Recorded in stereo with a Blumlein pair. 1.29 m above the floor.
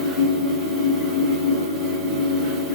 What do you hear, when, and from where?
0.0 s a fan: 25° right, 1.3 m